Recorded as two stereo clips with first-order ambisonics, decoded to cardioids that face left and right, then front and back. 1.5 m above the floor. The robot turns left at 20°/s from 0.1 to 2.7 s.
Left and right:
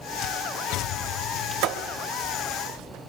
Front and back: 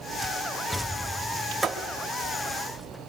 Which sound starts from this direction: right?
A thud, at 1.6 s.